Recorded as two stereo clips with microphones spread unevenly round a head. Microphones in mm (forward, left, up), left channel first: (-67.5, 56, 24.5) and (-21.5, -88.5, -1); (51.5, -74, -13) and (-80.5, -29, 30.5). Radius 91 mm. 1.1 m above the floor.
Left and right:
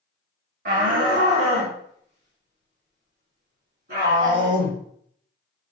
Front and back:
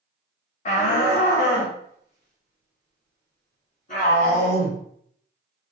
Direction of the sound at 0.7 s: 40° right.